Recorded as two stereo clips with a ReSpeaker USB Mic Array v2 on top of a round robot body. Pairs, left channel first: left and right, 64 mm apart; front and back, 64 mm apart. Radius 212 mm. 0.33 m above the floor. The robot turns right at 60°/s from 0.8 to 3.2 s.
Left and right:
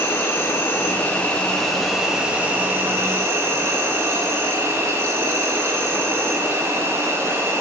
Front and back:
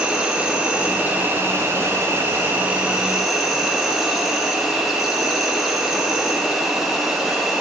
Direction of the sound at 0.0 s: 120° left.